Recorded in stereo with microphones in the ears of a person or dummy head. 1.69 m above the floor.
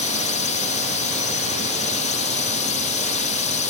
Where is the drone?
35° left (ahead or behind).